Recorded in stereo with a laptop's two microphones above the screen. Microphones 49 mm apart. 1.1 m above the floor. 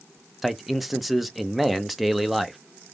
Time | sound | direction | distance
0.4 | a man speaking | centre (ahead or behind) | 0.7 m